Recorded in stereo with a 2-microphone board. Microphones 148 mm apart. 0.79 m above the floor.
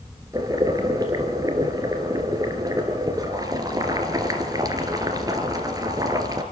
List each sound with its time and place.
0.3 s boiling: 25° right (ahead or behind), 2.5 m